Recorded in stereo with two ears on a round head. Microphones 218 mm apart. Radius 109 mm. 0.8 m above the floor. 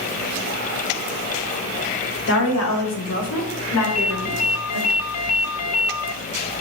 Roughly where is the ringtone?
Left.